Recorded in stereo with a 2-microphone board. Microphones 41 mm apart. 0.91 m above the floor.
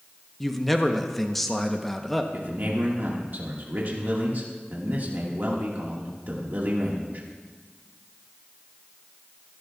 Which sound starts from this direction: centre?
A man speaking, at 0.4 s.